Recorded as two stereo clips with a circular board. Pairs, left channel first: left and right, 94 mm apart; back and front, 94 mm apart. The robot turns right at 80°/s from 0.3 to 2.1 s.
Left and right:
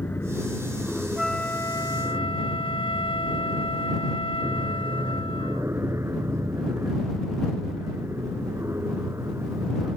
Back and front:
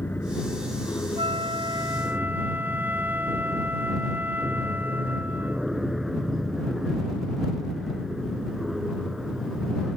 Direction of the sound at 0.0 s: 130° left.